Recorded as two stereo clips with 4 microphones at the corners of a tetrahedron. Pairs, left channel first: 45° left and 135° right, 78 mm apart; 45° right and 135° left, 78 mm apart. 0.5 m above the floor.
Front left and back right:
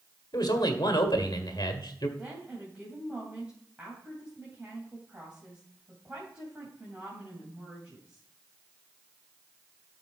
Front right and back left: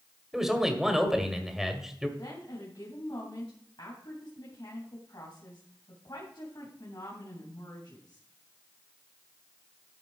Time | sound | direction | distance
0.3 | a man speaking | 50° left | 1.7 m
2.2 | a woman speaking | 65° right | 3 m